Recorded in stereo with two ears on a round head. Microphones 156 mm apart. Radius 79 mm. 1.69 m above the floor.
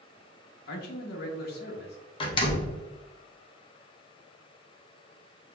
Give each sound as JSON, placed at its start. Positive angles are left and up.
{"t": 0.7, "sound": "a man speaking", "side_deg": 55, "distance_m": 1.2}
{"t": 2.2, "sound": "a door slam", "side_deg": 30, "distance_m": 0.8}